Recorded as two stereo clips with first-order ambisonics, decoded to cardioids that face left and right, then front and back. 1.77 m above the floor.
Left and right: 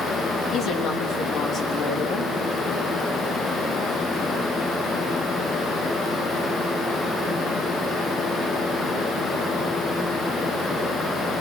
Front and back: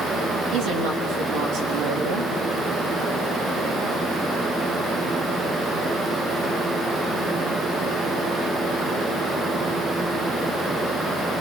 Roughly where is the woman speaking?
Behind left.